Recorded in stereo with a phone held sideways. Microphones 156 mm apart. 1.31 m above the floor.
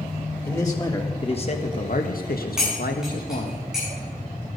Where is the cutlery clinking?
5° right (ahead or behind), 7.5 m.